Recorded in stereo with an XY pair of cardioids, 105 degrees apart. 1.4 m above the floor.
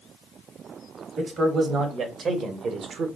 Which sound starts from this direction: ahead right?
A man speaking, at 1.2 s.